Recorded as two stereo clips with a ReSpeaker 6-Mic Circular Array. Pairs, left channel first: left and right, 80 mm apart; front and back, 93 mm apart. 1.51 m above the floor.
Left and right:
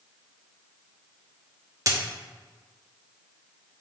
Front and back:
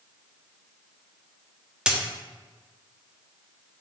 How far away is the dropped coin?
About 1.2 m.